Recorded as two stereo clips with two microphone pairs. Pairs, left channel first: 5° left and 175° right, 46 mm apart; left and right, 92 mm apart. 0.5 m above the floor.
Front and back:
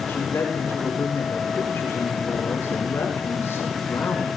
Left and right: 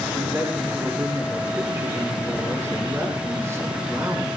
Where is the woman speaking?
30° right, 6 m.